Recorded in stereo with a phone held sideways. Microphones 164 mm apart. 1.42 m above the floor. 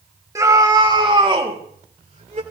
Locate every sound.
0.3 s a scream: 20° right (ahead or behind), 3 m; by 2.4 s 45° right (ahead or behind), 4 m